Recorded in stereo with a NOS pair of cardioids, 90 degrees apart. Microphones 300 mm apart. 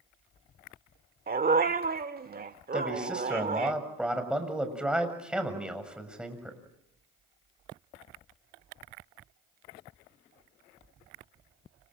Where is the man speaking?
5° right, 7 m.